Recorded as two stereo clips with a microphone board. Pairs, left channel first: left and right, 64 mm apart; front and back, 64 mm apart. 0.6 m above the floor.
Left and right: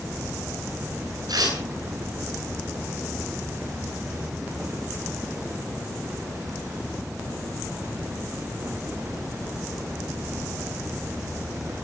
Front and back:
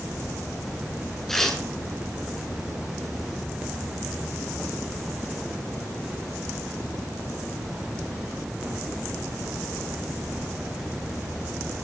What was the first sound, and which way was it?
Tearing paper, 85° right.